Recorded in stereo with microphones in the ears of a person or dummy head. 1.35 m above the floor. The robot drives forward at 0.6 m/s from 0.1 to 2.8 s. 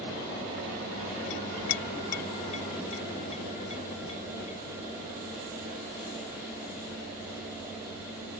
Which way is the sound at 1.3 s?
60° left (ahead or behind).